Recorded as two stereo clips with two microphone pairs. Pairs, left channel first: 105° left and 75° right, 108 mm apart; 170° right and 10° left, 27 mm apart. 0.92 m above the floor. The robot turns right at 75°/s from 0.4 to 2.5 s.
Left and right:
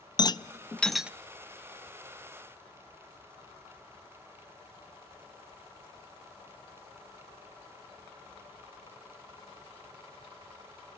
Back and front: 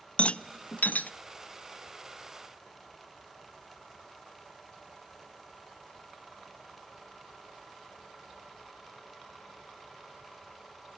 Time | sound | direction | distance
0.2 | a rattle | 155° left | 0.5 m